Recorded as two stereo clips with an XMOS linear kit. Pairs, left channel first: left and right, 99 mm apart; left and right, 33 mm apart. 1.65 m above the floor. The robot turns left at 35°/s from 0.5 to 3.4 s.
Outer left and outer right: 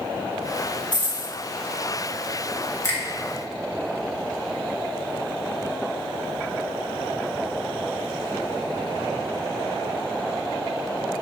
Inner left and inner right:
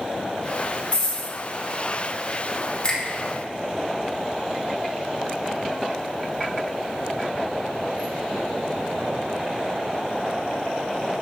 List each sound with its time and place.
0.9 s a dropped coin: 50° left (ahead or behind), 4 m; by 1.3 s 65° left (ahead or behind), 4 m
2.8 s a finger snap: 30° left (ahead or behind), 2 m; by 3.0 s 25° left (ahead or behind), 2 m